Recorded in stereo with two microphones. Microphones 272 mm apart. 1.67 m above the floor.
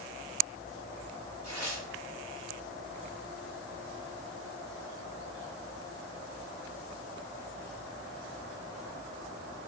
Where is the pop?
I don't hear a pop.